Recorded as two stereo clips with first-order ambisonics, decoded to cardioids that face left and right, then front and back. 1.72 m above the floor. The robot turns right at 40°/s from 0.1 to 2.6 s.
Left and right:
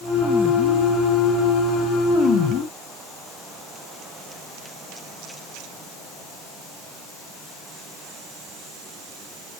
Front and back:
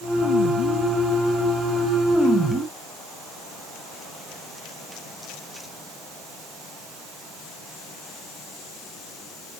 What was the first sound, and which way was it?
Only background noise.